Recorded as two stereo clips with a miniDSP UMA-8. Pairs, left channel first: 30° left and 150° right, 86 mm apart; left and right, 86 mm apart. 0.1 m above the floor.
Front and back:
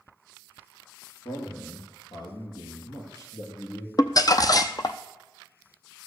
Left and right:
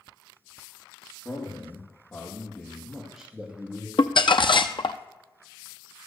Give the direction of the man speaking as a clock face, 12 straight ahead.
11 o'clock.